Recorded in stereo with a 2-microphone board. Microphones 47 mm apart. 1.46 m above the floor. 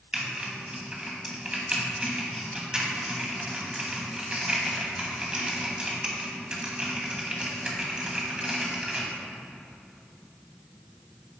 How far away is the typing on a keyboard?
About 1.5 m.